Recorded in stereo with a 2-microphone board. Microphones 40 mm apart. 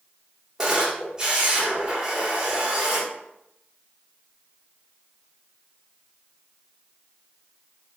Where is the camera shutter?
20° right (ahead or behind), 1.0 m.